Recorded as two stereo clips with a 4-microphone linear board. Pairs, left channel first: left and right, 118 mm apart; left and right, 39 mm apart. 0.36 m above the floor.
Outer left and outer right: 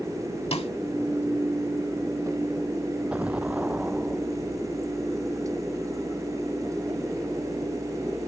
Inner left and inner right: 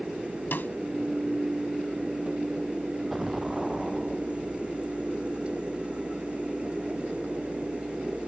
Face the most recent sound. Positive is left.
turn(degrees=-10)  # may be behind; listen again after turning